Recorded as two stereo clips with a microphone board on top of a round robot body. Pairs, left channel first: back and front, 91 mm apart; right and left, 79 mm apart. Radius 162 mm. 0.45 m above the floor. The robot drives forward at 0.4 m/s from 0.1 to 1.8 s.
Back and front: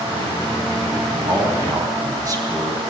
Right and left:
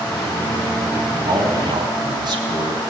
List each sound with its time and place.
1.2 s a man speaking: 50° left, 4 m; by 2.8 s 55° left, 4 m